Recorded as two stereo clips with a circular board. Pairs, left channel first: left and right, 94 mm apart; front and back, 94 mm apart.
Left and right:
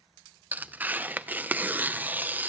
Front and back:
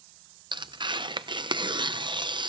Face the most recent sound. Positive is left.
turn(degrees=-160)